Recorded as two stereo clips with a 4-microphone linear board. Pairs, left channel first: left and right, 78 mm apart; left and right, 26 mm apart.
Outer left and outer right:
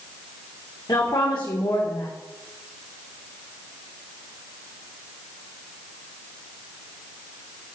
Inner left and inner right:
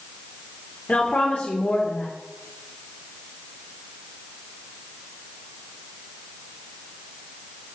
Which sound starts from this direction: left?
A woman speaking, at 0.9 s.